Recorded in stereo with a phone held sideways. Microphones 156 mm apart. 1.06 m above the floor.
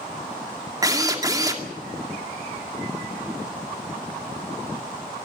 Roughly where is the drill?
Right.